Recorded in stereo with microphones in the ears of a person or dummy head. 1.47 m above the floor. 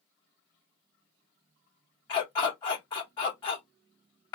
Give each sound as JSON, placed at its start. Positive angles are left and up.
{"t": 2.1, "sound": "a dog barking", "side_deg": 25, "distance_m": 1.5}